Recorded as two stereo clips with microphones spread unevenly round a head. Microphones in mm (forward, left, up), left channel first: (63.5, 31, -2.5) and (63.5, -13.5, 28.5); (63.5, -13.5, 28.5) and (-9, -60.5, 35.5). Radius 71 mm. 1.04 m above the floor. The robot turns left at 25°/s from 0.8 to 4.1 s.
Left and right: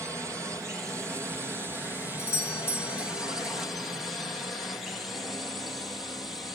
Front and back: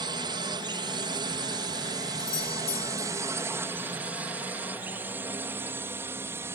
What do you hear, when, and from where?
0.0 s a drone: 160° right; by 6.5 s 150° left
2.2 s a doorbell: 75° left; by 3.1 s 55° left